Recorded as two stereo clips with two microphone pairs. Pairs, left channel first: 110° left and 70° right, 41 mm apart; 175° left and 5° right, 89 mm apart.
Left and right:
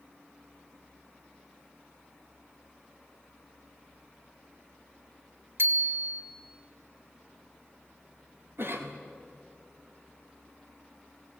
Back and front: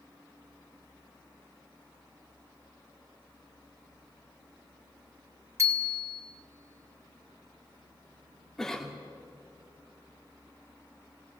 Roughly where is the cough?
Right.